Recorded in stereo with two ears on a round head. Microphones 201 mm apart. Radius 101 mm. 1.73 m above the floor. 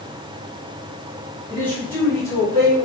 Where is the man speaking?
5° left (ahead or behind), 3.5 m; by 2.9 s 25° left (ahead or behind), 2.5 m.